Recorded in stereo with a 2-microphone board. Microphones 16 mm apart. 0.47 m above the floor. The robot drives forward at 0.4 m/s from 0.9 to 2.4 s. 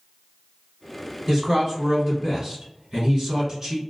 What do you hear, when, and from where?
1.3 s a man speaking: 30° right (ahead or behind), 1.6 m; by 3.8 s 40° right (ahead or behind), 1.4 m